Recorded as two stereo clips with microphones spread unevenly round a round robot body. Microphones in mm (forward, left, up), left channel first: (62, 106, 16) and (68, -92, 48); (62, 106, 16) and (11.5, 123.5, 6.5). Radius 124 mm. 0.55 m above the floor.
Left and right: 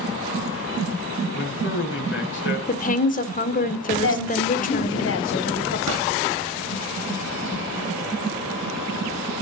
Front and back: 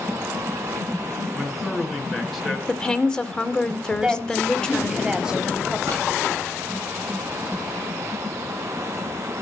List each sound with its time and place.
1.3 s a man speaking: 70° left, 6.5 m
2.7 s a woman speaking: 60° left, 1.9 m
4.0 s a woman speaking: 85° left, 3 m
5.9 s a pop: 125° right, 7.5 m